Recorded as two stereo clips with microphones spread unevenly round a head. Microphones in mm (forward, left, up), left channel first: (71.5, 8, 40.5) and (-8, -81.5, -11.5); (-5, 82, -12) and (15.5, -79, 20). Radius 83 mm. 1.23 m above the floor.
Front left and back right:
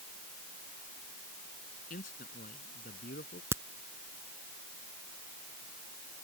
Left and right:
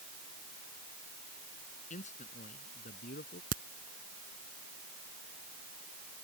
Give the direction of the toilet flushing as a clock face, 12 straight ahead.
I don't hear a toilet flushing.